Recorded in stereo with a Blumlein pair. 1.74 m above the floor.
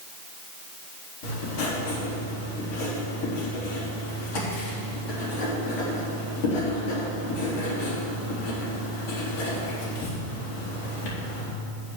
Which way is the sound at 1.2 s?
55° left.